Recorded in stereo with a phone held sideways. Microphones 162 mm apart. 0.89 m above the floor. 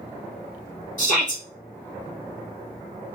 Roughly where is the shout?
Left.